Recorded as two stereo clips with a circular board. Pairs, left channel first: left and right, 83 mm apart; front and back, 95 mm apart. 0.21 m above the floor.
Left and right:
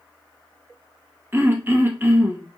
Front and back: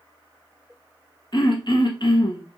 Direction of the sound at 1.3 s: 30° right.